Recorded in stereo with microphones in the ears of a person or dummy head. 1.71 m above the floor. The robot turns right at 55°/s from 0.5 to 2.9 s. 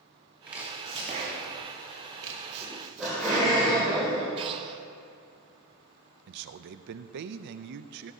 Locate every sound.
0.5 s chopping: 5° right (ahead or behind), 2 m; by 3.6 s 40° right (ahead or behind), 2 m
2.6 s laughter: 15° left (ahead or behind), 2.5 m; by 4.3 s centre (ahead or behind), 2.5 m
4.4 s breathing: 25° right (ahead or behind), 0.6 m
6.3 s a man speaking: 55° right (ahead or behind), 0.5 m